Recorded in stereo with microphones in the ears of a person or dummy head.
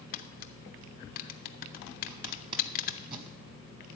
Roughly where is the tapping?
Left.